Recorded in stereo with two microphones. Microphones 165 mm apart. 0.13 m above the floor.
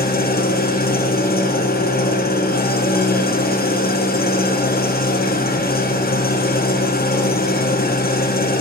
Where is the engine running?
70° left (ahead or behind), 2 m.